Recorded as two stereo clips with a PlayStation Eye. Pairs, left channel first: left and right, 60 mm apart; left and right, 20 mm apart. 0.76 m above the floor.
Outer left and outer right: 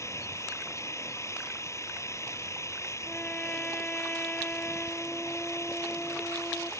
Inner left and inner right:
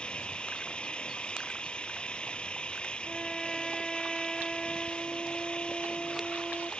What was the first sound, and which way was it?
An engine running, 60° left (ahead or behind).